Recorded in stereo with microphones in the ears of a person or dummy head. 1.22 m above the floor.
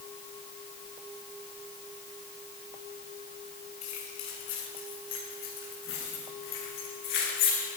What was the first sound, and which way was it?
Keys jangling, 85° left.